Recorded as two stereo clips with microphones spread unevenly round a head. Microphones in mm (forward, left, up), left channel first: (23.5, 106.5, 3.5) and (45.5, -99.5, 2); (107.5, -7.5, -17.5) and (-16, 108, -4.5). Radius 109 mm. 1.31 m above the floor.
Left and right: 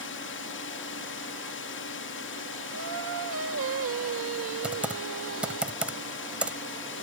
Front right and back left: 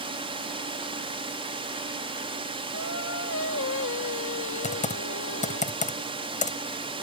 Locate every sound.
0.0 s a drone: 80° left
2.7 s singing: 65° right
4.6 s typing on a keyboard: straight ahead